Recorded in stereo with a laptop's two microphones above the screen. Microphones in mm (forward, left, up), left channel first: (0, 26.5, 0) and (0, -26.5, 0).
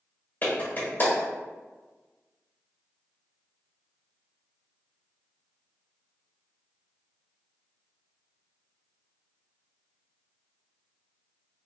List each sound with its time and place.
0.4 s a clap: 40° left (ahead or behind), 1.4 m